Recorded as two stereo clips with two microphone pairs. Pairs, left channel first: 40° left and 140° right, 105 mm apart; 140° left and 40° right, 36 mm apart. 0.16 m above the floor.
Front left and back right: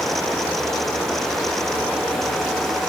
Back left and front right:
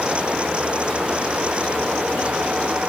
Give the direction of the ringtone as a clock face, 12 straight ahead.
I don't hear a ringtone.